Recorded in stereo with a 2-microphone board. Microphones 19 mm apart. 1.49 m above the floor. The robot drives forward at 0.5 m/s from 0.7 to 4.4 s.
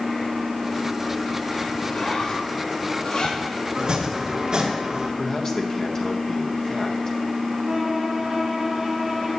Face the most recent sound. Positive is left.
turn(degrees=-20)  # may be behind; listen again after turning